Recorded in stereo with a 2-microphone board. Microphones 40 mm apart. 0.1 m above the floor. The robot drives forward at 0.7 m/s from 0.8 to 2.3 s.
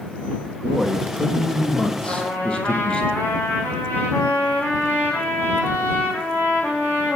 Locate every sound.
0.6 s a man speaking: 15° left (ahead or behind), 4 m; by 3.0 s 20° left (ahead or behind), 3 m
2.0 s a trumpet: 60° left (ahead or behind), 5 m